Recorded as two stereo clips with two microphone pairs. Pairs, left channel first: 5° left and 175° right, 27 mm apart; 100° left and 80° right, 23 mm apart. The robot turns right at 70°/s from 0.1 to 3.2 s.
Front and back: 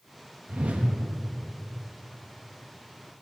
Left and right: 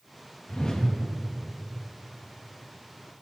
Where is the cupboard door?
No cupboard door in this recording.